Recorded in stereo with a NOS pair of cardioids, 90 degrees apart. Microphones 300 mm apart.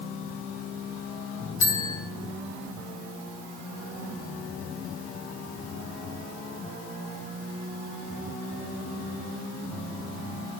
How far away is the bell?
About 3.5 m.